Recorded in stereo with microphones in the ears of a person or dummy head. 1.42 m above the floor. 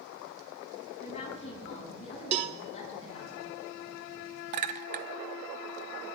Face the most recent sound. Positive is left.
turn(degrees=-35)  # may be behind; listen again after turning